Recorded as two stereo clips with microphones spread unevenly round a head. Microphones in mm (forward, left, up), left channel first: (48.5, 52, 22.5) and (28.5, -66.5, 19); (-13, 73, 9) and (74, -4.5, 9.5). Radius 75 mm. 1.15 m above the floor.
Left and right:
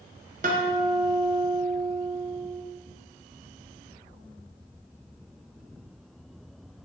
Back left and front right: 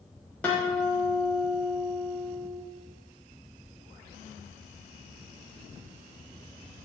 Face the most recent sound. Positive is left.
turn(degrees=-140)